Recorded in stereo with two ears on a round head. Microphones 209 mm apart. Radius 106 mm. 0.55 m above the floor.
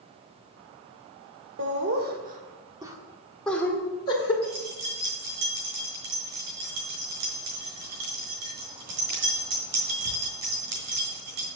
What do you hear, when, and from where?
1.6 s laughter: 50° right (ahead or behind), 1.8 m; by 4.3 s 25° left (ahead or behind), 2.0 m
4.4 s keys jangling: 65° right (ahead or behind), 5 m